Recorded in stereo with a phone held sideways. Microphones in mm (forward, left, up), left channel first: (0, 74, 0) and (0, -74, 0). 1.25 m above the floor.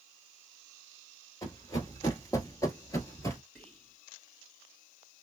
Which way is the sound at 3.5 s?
10° left (ahead or behind).